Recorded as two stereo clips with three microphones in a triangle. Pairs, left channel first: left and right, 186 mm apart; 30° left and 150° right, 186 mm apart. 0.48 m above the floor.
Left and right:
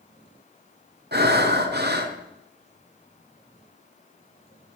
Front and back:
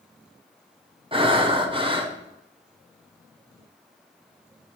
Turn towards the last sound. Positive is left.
turn(degrees=-90)